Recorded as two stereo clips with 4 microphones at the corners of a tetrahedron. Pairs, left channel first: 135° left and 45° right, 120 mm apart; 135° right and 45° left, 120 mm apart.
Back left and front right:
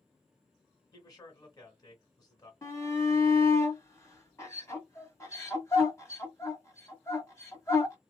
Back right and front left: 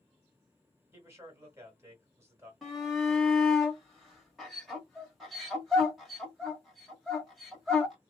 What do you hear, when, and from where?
0.9 s a man speaking: 100° left, 1.4 m
2.6 s a shout: 135° left, 1.3 m